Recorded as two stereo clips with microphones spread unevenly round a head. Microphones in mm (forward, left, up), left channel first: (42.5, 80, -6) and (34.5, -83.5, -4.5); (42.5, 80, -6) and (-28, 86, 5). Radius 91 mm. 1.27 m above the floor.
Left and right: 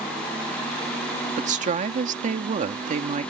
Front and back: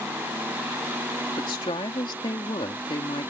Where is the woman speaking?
45° right.